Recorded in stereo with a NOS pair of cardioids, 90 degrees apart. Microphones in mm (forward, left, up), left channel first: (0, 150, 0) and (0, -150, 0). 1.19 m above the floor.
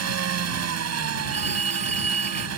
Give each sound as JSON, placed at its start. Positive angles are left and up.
{"t": 0.0, "sound": "an engine running", "azimuth_deg": -55}
{"t": 1.3, "sound": "a phone ringing", "azimuth_deg": -20}